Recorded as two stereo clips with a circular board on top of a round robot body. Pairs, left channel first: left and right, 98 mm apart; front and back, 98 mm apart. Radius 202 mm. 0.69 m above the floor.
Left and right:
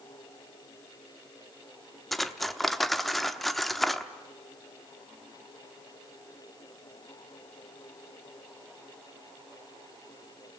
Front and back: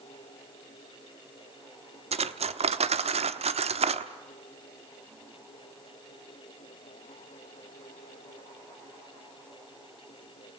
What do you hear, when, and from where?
2.1 s cutlery clinking: straight behind, 0.9 m